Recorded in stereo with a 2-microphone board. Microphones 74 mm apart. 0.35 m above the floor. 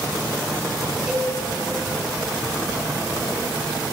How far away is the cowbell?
About 2.5 m.